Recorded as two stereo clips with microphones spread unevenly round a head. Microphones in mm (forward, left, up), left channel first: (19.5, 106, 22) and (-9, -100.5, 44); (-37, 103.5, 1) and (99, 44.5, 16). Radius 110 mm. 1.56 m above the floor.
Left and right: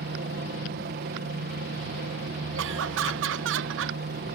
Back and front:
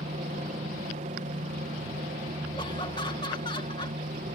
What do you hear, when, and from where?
0.0 s a helicopter: 65° right
2.5 s laughter: 130° right